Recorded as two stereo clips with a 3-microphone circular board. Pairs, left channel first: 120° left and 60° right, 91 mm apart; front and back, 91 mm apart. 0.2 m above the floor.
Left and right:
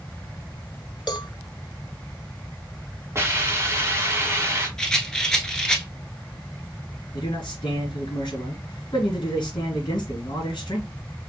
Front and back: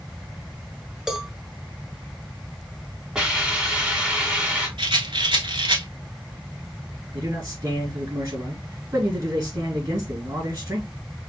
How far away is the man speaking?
About 2.5 m.